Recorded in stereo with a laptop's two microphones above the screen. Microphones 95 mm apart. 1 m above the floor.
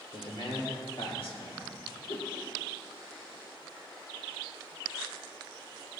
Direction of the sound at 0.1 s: 80° left.